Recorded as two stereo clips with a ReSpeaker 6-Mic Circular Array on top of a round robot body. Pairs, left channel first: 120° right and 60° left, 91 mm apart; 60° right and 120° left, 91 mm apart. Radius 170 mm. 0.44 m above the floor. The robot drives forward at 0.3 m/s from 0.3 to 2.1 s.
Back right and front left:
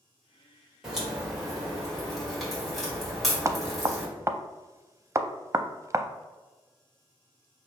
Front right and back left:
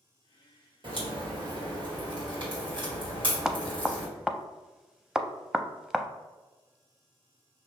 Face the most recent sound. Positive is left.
turn(degrees=40)